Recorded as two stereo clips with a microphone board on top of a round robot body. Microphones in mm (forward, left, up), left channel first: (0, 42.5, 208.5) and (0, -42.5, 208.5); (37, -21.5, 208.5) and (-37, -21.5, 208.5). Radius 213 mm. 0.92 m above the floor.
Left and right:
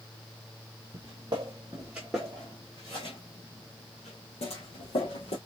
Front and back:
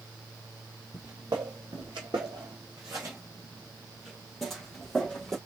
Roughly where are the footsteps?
Behind right.